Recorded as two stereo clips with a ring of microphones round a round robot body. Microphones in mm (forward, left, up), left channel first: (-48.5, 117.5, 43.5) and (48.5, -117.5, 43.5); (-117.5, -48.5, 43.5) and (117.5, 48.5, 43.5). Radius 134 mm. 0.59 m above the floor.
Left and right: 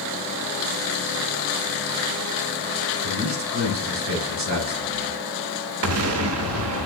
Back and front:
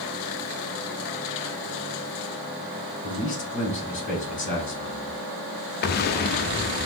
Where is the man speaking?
100° right, 3 m.